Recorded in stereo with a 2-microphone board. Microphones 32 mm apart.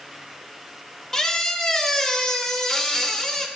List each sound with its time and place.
1.1 s a squeak: 15° left (ahead or behind), 0.6 m